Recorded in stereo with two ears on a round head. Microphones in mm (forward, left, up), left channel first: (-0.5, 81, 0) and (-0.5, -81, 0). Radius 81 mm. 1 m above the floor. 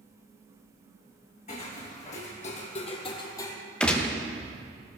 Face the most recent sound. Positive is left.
turn(degrees=5)  # may be behind; listen again after turning